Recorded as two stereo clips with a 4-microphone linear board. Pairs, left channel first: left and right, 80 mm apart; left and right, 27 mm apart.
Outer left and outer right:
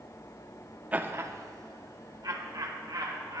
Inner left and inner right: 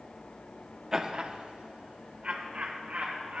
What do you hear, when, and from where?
0.9 s laughter: 20° right (ahead or behind), 0.6 m; by 3.4 s 60° right (ahead or behind), 2.5 m